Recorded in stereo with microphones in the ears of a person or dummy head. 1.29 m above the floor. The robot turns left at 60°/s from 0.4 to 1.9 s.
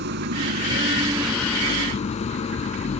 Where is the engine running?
125° right; by 3.0 s 145° left.